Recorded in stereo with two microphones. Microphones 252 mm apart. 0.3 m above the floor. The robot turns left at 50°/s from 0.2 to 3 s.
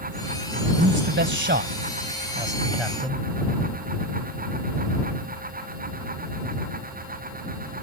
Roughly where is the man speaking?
Right.